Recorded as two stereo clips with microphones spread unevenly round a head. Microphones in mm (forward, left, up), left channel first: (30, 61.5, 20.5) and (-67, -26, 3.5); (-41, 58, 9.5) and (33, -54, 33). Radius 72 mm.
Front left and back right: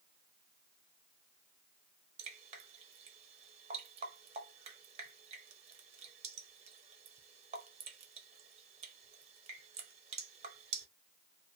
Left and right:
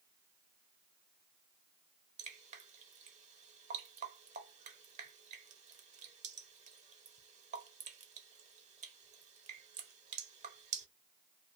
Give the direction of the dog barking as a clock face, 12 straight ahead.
I don't hear a dog barking.